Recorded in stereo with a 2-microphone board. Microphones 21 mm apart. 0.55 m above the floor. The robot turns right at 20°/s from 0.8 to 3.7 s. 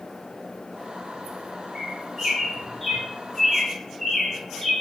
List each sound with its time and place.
1.8 s a bird: 10° right (ahead or behind), 6.5 m; by 4.7 s 30° left (ahead or behind), 6.5 m